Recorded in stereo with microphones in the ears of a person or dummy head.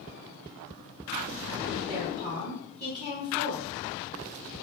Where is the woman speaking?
20° right (ahead or behind), 1.2 m.